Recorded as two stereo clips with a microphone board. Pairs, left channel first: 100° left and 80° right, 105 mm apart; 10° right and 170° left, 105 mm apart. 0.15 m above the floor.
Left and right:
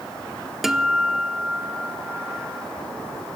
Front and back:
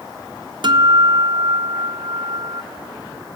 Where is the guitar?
165° right, 1.0 m.